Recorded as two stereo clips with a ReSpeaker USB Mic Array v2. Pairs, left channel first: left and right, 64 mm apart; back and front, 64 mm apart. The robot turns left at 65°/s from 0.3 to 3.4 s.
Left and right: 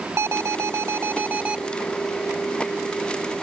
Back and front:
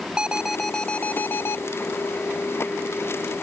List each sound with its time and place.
0.2 s an alarm: 70° right; by 1.6 s 155° right